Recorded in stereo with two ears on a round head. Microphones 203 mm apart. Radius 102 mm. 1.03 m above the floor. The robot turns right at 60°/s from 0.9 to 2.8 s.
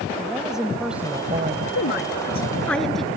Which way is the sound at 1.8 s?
115° left.